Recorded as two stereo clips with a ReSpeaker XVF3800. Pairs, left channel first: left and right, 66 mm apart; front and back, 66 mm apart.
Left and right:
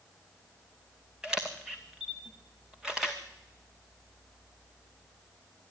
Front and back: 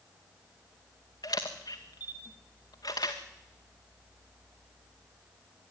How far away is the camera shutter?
About 2.5 m.